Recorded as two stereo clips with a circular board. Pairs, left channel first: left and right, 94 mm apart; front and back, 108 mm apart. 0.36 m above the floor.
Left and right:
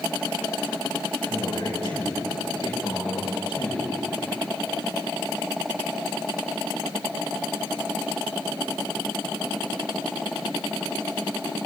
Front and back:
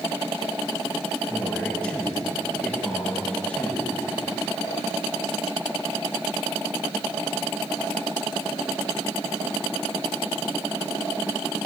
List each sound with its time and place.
1.3 s a man speaking: 75° left, 5.5 m